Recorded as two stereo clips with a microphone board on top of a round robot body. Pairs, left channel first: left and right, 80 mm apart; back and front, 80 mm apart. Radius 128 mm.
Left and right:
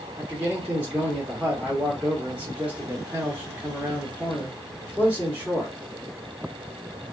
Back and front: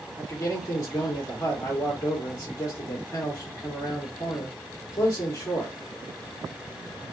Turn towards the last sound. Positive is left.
turn(degrees=-150)